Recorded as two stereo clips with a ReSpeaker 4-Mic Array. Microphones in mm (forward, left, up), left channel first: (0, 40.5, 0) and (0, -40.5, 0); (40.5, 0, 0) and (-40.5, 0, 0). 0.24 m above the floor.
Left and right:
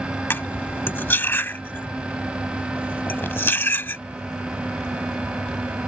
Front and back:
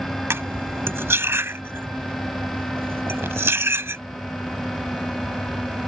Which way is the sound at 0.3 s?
140° left.